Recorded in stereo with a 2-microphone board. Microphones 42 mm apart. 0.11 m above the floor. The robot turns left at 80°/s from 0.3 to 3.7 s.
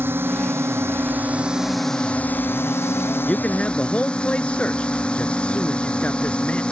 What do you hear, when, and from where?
0.0 s a drone: 60° right; by 6.7 s 25° left
3.2 s a man speaking: 125° left; by 6.6 s 90° left